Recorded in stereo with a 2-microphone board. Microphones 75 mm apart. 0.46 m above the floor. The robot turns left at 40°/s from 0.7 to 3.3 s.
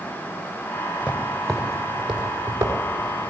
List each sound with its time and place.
1.0 s footsteps: 20° left (ahead or behind), 3.5 m; by 3.3 s 55° right (ahead or behind), 5.5 m